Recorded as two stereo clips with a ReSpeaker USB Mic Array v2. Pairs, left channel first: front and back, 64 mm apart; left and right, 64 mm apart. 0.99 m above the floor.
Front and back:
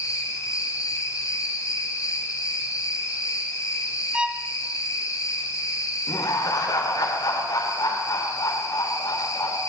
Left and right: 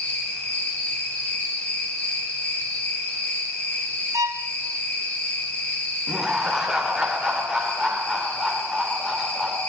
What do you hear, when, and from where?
0.0 s an insect: 25° left, 8.5 m
4.1 s a violin: 105° right, 1.3 m
6.1 s laughter: 10° right, 4 m